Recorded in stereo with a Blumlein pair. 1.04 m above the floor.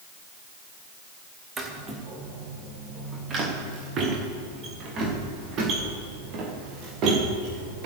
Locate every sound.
1.6 s footsteps: 15° right, 3.5 m; by 7.9 s 40° right, 6 m